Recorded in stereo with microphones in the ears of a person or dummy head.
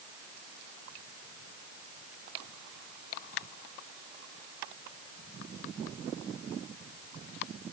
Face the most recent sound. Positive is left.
No sound to turn to.